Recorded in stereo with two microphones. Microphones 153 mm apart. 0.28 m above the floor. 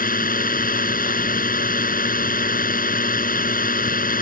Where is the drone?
70° left (ahead or behind).